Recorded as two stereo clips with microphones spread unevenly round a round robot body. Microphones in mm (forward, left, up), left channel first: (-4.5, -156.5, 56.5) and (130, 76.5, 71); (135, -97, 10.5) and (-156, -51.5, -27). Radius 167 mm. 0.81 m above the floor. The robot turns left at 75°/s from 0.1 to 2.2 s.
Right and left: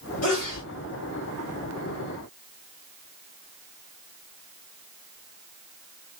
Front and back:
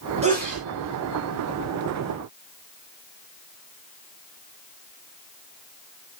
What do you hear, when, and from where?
0.2 s a sneeze: 125° right, 2 m; by 0.6 s 155° right, 2 m